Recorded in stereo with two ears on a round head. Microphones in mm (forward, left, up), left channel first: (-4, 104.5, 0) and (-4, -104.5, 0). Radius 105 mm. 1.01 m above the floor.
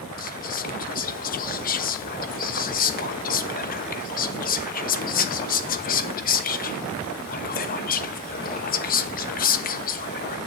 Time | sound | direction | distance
0.2 | whispering | 40° left (ahead or behind) | 1.0 m